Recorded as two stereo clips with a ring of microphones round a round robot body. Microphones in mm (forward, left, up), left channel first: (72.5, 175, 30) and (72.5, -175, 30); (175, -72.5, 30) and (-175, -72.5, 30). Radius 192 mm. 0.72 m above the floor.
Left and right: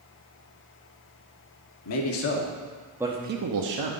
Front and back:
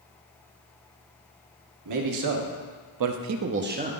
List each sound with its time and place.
1.9 s a man speaking: 135° left, 1.1 m; by 3.9 s 110° right, 0.8 m